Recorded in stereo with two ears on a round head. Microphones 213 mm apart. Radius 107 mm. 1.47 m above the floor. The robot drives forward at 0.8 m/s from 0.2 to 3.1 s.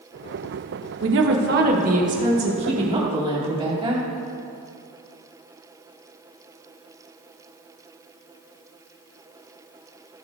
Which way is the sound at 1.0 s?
60° right (ahead or behind).